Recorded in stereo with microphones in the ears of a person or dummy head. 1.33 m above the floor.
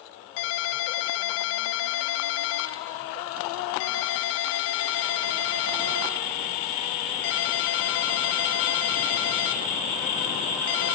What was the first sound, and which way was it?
A ringtone, 70° left (ahead or behind).